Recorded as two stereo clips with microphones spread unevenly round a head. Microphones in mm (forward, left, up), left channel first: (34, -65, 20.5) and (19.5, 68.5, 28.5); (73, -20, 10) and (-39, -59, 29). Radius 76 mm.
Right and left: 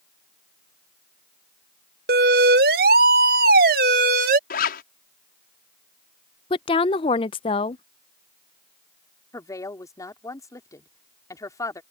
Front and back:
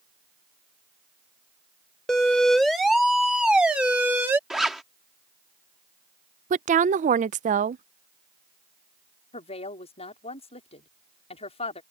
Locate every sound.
2.1 s a siren: 105° left; by 4.4 s 120° left
4.5 s a zipper: 75° right
6.5 s a woman speaking: 140° right
9.3 s a woman speaking: 15° right